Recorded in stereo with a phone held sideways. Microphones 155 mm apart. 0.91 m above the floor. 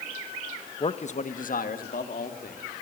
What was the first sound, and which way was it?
A man speaking, 35° left (ahead or behind).